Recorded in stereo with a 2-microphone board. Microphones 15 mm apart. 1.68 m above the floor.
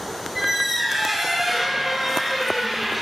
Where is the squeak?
30° right (ahead or behind), 1.1 m.